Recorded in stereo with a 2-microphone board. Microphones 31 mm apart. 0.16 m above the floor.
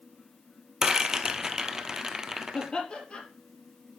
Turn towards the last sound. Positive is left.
turn(degrees=35)  # may be behind; listen again after turning